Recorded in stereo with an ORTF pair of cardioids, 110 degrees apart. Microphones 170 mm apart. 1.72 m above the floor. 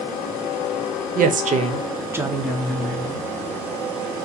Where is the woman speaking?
60° right, 0.9 m; by 3.3 s 20° left, 1.3 m.